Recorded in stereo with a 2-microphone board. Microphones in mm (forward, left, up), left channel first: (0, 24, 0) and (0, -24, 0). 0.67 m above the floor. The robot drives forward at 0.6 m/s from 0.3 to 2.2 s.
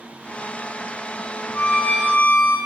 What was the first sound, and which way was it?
A violin, 45° left (ahead or behind).